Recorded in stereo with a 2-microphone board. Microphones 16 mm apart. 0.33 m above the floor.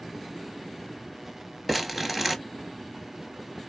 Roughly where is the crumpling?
Centre.